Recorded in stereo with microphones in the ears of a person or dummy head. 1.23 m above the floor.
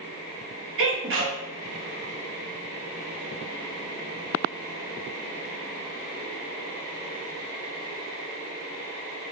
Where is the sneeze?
65° right (ahead or behind), 1.0 m.